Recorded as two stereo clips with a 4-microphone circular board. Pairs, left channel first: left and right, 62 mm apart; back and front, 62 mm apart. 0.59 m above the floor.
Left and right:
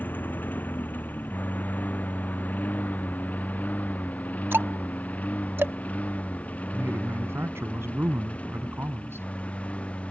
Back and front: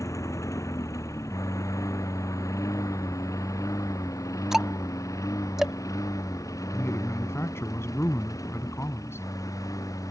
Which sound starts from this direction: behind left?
A lawn mower, at 0.0 s.